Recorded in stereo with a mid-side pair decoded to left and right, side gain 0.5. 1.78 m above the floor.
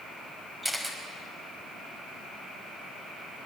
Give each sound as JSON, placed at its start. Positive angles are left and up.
{"t": 0.6, "sound": "a camera shutter", "azimuth_deg": -10, "distance_m": 5.0}